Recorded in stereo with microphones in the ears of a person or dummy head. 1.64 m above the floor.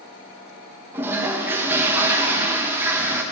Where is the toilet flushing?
15° right (ahead or behind), 0.7 m.